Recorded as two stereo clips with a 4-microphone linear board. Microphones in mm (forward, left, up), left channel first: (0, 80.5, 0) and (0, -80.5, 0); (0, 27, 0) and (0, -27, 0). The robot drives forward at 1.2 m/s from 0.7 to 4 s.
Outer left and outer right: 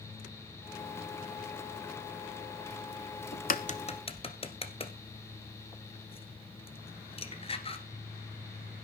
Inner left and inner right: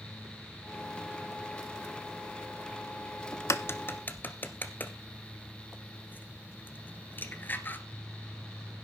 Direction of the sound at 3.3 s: 75° left (ahead or behind).